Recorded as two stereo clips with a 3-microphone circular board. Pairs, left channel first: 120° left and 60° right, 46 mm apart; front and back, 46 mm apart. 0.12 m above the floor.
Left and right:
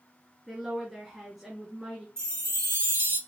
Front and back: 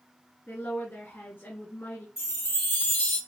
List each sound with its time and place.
0.5 s a woman speaking: 25° left, 1.8 m
2.2 s a chime: 35° right, 2.0 m